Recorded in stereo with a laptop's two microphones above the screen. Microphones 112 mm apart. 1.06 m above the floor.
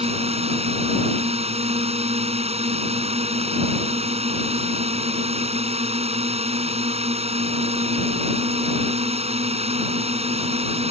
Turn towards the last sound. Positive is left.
turn(degrees=-65)  # may be behind; listen again after turning